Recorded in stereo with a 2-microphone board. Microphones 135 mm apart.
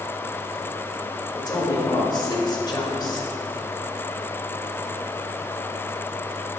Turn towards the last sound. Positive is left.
turn(degrees=35)  # may be behind; listen again after turning